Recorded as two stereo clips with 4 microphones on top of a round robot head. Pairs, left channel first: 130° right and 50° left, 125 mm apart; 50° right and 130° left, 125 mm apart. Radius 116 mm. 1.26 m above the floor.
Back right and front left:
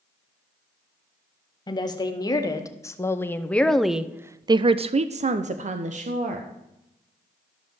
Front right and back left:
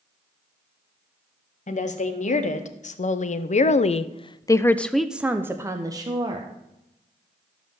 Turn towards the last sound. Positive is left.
turn(degrees=75)